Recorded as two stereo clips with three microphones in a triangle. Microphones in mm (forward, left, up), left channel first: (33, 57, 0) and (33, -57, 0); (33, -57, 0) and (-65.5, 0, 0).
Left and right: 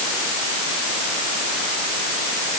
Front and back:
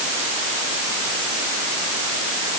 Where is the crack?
No crack in this recording.